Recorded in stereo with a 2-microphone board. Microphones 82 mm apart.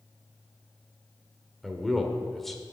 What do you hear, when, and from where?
1.6 s a man speaking: 5° left (ahead or behind), 1.3 m